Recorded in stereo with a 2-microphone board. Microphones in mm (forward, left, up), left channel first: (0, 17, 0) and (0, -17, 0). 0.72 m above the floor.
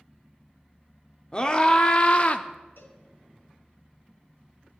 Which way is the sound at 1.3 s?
25° left (ahead or behind).